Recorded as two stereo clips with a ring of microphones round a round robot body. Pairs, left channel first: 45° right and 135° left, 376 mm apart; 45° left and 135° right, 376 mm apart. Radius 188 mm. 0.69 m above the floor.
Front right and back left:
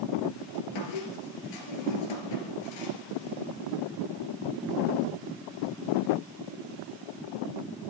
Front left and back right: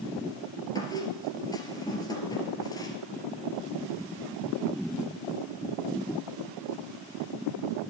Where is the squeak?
35° right, 2.5 m.